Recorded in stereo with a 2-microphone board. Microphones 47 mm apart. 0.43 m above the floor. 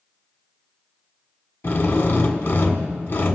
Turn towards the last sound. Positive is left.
turn(degrees=50)  # may be behind; listen again after turning